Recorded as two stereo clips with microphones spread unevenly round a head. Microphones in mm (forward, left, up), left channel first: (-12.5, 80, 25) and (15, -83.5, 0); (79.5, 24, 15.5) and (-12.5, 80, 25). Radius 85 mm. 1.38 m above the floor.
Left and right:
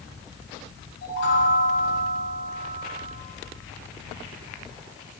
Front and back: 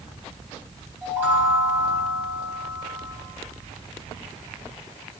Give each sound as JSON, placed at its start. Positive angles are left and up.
{"t": 1.0, "sound": "a chime", "azimuth_deg": 80, "distance_m": 3.5}